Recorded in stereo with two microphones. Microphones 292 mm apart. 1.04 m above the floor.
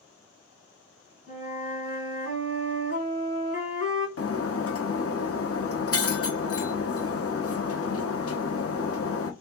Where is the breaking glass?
50° left (ahead or behind), 0.7 m.